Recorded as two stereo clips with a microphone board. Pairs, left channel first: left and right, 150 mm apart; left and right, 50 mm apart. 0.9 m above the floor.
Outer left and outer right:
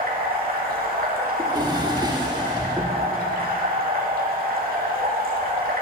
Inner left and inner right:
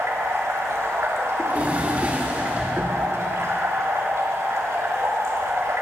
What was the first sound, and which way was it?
Running water, 75° right (ahead or behind).